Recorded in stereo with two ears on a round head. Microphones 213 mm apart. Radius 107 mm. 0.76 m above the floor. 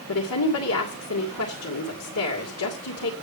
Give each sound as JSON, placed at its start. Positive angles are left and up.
{"t": 0.1, "sound": "a woman speaking", "side_deg": 70, "distance_m": 2.5}